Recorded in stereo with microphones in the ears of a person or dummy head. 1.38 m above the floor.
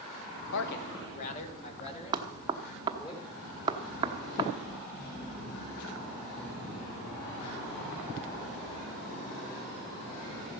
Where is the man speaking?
80° left, 1.1 m; by 3.1 s 30° left (ahead or behind), 4.5 m.